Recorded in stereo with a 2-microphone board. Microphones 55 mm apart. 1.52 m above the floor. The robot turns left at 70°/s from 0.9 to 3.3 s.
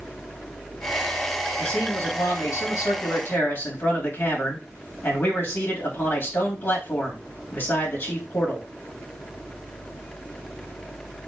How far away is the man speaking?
About 2.5 m.